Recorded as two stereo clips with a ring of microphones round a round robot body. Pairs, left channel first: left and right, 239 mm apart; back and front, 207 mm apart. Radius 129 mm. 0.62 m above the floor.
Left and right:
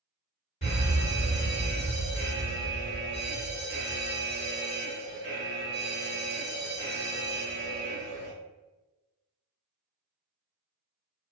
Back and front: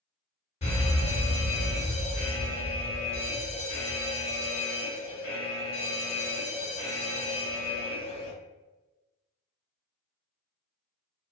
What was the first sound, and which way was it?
A fire alarm, 135° left.